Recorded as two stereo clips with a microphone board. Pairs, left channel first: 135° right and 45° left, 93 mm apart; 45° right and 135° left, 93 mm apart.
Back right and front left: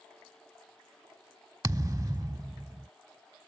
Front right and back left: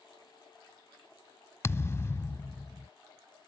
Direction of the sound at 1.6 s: 10° left.